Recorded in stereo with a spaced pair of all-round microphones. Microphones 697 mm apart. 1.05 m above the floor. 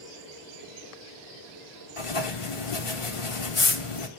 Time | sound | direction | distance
2.0 | writing | 50° left (ahead or behind) | 0.8 m